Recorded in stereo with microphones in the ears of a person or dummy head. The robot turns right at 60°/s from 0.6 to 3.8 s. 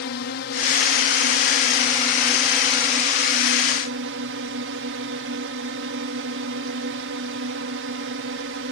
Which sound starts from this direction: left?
A drone, at 0.0 s.